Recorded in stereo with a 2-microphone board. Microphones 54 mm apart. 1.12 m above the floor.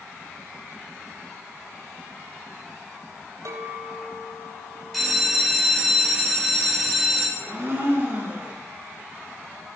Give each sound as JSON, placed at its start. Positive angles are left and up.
{"t": 3.5, "sound": "a clink", "side_deg": -80, "distance_m": 3.5}
{"t": 4.9, "sound": "a bell", "side_deg": 0, "distance_m": 4.0}
{"t": 7.4, "sound": "a blender", "side_deg": -35, "distance_m": 7.0}